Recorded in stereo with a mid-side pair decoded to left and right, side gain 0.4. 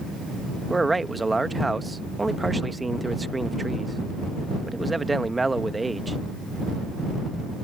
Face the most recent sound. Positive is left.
turn(degrees=-20)